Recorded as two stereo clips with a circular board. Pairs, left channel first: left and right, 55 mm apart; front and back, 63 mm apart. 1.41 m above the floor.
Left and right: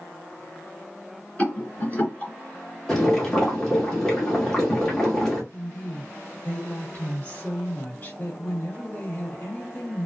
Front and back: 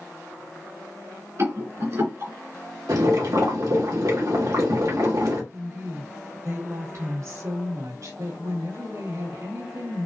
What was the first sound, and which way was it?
A rattle, 150° left.